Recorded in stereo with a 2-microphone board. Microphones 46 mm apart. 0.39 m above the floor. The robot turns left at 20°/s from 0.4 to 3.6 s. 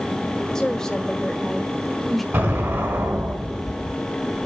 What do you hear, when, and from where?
0.6 s a woman speaking: 15° left (ahead or behind), 1.2 m; by 2.2 s 5° left (ahead or behind), 1.2 m
2.3 s an explosion: 55° right (ahead or behind), 4 m; by 4.0 s 70° right (ahead or behind), 4 m